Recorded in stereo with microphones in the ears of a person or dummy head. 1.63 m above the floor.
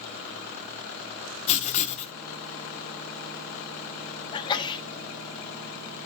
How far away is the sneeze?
About 0.7 m.